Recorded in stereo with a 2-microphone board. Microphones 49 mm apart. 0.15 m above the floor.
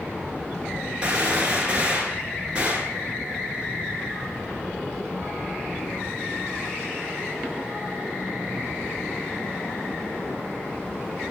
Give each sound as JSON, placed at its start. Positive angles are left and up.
{"t": 1.0, "sound": "a gunshot", "side_deg": -20, "distance_m": 1.4}